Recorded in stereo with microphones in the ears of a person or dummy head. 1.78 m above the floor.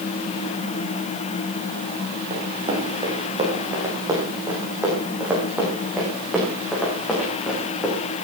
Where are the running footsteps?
35° right (ahead or behind), 5.5 m; by 8.0 s 10° left (ahead or behind), 8 m.